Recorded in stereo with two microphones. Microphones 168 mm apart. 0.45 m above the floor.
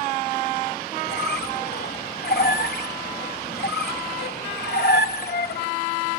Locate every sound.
1.1 s a squeak: 75° left (ahead or behind), 1.2 m